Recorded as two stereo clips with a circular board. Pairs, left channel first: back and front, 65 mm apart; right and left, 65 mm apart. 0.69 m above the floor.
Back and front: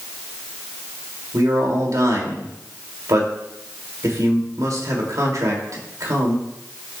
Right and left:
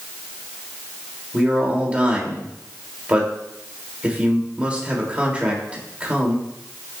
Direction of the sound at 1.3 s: 20° left.